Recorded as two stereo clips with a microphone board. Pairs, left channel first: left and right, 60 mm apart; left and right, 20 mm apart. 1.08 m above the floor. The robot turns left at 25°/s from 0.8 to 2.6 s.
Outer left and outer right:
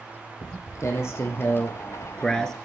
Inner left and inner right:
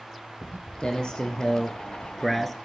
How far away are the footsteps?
About 3 m.